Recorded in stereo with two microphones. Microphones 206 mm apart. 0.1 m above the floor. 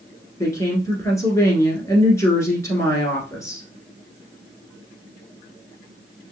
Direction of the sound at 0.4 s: 15° left (ahead or behind).